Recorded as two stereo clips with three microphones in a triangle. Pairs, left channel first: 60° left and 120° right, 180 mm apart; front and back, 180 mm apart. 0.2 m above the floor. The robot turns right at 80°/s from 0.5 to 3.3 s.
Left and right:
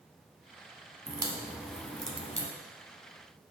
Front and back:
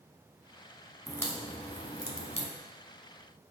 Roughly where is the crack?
Right.